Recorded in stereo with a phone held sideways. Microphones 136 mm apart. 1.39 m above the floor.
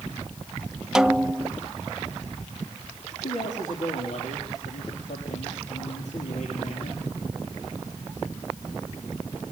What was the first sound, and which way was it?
A snare drum, 5° right (ahead or behind).